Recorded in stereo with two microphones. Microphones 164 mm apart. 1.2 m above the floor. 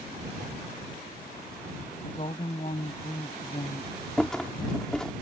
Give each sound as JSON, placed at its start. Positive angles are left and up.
{"t": 2.0, "sound": "a woman speaking", "side_deg": 40}
{"t": 4.2, "sound": "a rattle", "side_deg": 5}